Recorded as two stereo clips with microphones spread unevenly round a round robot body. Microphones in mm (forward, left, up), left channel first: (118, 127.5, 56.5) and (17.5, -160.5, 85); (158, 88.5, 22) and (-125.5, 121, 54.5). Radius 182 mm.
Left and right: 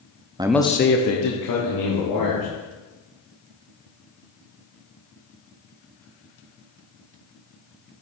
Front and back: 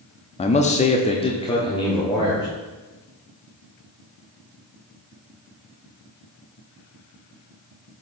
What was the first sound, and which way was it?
A man speaking, 35° right.